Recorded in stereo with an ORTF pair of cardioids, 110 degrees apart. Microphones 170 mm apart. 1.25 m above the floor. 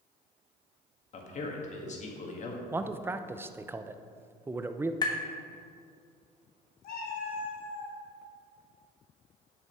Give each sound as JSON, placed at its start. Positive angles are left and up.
{"t": 1.1, "sound": "a man speaking", "azimuth_deg": 45, "distance_m": 1.9}
{"t": 2.7, "sound": "a man speaking", "azimuth_deg": -15, "distance_m": 0.6}
{"t": 5.0, "sound": "tapping", "azimuth_deg": 25, "distance_m": 1.4}
{"t": 6.8, "sound": "a cat meowing", "azimuth_deg": 70, "distance_m": 3.0}